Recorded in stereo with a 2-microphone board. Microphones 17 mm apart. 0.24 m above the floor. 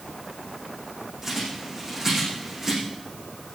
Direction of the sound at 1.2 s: 20° right (ahead or behind).